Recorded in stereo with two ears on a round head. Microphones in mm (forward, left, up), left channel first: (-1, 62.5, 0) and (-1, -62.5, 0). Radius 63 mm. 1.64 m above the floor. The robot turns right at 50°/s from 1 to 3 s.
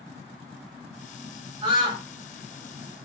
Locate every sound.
1.6 s a scream: 45° right (ahead or behind), 2.5 m; by 2.0 s 20° right (ahead or behind), 2.5 m